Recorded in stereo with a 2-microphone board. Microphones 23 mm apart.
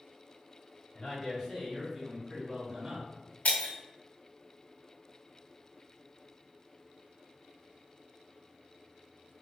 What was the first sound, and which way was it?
A man speaking, 25° left (ahead or behind).